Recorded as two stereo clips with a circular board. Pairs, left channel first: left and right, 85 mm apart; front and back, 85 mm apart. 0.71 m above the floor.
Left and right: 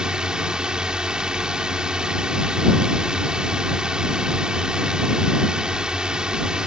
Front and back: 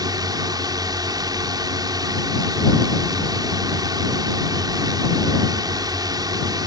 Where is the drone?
170° right.